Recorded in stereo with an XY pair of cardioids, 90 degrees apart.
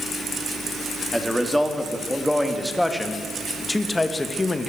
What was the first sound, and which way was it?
A man speaking, 5° left.